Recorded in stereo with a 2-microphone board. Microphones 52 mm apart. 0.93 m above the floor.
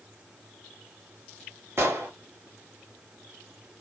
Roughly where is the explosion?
Right.